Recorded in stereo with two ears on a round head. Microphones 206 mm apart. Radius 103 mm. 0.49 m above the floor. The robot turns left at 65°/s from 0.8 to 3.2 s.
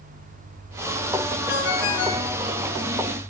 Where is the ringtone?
135° left, 3.5 m; by 2.3 s 80° left, 3.5 m.